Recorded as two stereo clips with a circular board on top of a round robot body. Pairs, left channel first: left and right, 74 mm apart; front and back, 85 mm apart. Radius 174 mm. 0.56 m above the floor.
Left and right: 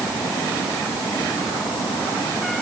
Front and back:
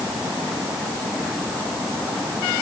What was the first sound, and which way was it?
Only background noise.